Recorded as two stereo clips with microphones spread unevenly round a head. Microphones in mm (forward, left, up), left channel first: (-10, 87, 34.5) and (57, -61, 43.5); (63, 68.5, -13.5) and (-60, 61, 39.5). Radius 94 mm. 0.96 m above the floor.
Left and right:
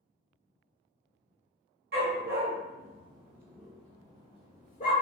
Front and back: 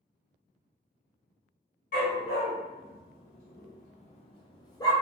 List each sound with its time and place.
1.9 s a dog barking: 45° right, 1.2 m; by 4.9 s 80° left, 1.0 m